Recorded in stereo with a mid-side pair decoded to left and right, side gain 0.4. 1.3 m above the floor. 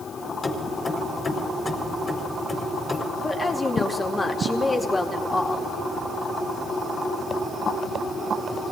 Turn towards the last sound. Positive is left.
turn(degrees=25)